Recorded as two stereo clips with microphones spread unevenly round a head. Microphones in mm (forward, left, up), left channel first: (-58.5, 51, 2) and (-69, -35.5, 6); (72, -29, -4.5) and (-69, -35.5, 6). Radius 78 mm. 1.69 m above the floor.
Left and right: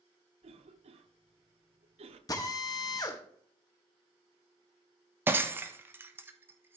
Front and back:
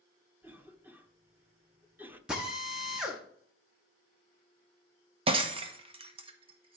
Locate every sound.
0.4 s a cough: 100° right, 1.1 m
2.3 s a drill: 105° left, 1.4 m
5.3 s breaking glass: 150° right, 1.0 m